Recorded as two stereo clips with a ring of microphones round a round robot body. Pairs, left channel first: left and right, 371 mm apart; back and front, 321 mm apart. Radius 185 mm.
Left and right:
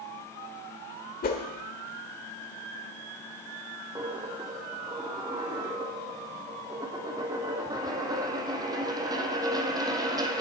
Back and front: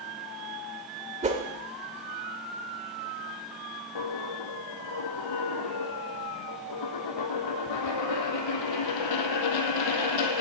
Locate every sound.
1.2 s a whoosh: 45° left, 1.5 m
4.0 s a dropped coin: 170° right, 1.0 m